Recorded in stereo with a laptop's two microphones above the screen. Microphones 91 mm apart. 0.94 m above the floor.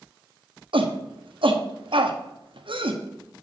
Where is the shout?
70° right (ahead or behind), 1.1 m.